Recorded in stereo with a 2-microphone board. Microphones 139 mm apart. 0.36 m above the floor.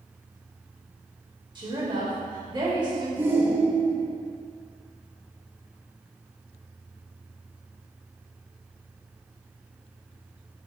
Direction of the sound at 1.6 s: 30° right (ahead or behind).